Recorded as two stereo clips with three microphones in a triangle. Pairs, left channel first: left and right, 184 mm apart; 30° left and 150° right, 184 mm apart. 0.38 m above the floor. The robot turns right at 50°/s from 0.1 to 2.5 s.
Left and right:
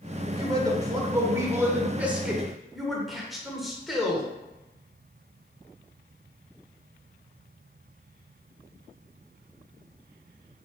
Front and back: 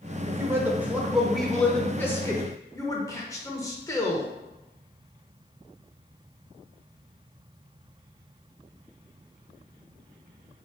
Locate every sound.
0.3 s a man speaking: 115° right, 0.8 m; by 4.3 s 5° right, 0.8 m